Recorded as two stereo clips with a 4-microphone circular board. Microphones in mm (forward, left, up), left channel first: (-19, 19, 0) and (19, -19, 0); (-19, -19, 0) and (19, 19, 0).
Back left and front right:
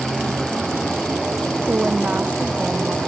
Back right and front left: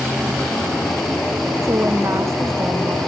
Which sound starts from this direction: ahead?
A woman speaking, at 1.6 s.